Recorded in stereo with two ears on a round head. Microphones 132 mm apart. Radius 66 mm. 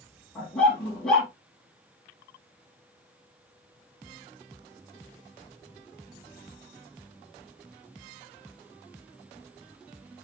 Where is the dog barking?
5° left (ahead or behind), 8 m.